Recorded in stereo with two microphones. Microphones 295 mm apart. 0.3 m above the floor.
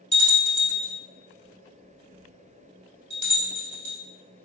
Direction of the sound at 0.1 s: 85° left.